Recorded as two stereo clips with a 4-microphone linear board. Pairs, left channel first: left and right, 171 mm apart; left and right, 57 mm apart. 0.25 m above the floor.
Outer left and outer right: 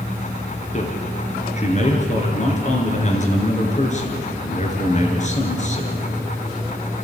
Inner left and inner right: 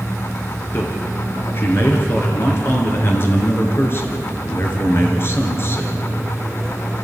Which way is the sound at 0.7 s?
40° left (ahead or behind).